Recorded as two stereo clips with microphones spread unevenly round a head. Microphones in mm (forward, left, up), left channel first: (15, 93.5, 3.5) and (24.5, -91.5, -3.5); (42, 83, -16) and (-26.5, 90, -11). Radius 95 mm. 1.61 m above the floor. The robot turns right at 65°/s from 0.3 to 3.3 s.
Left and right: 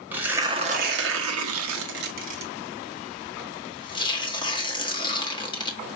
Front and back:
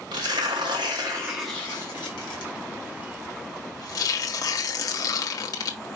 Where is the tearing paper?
170° right, 1.5 m; by 5.8 s 25° left, 1.5 m.